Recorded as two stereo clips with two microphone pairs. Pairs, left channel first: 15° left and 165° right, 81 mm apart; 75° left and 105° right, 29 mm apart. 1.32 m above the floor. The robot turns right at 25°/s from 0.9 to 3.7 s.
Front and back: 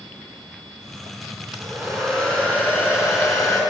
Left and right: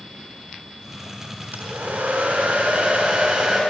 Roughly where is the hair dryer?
Right.